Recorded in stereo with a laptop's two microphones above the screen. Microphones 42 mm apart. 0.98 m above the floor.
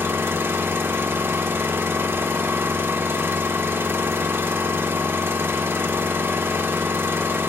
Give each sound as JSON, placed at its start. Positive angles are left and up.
{"t": 0.0, "sound": "an engine running", "side_deg": -75, "distance_m": 0.8}